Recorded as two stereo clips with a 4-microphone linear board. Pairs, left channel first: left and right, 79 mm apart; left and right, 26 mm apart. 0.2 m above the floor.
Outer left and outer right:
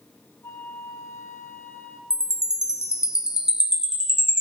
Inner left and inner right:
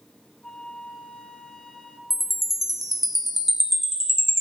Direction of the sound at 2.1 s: 5° right (ahead or behind).